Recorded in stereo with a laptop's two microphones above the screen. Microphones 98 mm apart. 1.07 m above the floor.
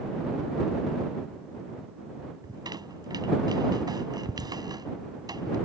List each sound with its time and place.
2.4 s a squeak: 45° right (ahead or behind)